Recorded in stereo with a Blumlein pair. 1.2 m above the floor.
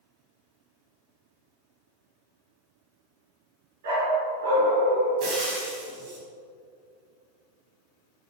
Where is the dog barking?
60° right, 4.5 m.